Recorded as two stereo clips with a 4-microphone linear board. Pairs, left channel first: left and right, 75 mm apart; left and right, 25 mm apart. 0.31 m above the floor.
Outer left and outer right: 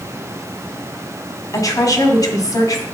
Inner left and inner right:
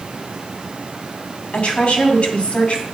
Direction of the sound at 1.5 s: 50° left (ahead or behind).